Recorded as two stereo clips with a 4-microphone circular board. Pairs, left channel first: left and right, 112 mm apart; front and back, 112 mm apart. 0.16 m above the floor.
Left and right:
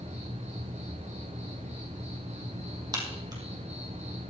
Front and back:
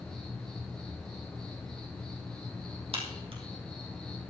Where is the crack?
145° right, 3 m.